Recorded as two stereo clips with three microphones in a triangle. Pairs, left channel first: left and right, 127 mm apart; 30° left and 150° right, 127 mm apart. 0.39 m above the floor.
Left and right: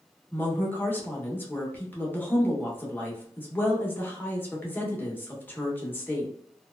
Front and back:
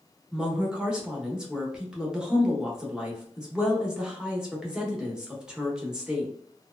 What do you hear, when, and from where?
0.3 s a woman speaking: 135° left, 0.8 m